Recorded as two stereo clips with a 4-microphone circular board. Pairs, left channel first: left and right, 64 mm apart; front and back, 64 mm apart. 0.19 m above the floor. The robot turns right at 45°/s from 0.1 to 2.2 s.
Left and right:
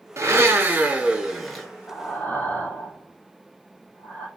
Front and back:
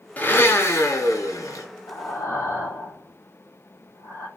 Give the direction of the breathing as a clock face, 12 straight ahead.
11 o'clock.